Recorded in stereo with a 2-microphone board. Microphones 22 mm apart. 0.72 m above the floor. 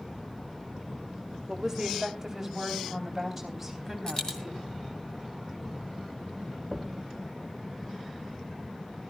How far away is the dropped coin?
About 2.5 m.